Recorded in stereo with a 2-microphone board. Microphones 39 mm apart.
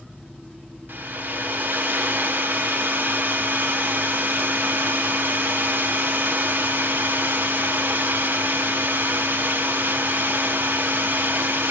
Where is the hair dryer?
55° right (ahead or behind), 0.5 m.